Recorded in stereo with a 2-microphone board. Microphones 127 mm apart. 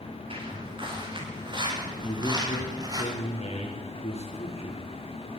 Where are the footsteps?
45° right (ahead or behind), 9 m; by 3.0 s 30° right (ahead or behind), 6.5 m.